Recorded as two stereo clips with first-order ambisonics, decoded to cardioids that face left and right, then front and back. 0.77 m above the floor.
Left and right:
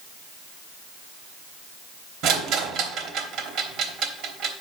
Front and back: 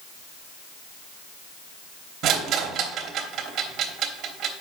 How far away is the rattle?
About 1.0 m.